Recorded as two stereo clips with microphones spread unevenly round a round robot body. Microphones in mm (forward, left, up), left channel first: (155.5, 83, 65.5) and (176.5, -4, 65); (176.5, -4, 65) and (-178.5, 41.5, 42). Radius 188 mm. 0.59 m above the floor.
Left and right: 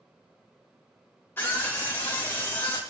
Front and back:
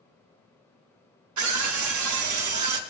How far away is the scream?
About 1.6 m.